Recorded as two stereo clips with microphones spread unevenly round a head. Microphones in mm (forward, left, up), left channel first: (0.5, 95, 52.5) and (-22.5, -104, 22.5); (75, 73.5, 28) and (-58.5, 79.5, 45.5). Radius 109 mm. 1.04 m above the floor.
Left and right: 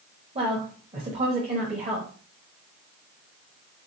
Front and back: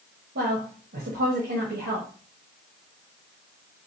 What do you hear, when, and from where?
0.3 s a woman speaking: 155° right, 1.1 m